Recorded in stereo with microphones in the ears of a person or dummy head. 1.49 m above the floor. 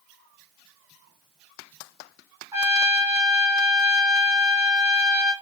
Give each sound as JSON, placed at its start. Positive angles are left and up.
{"t": 2.5, "sound": "a trumpet", "side_deg": -25, "distance_m": 1.4}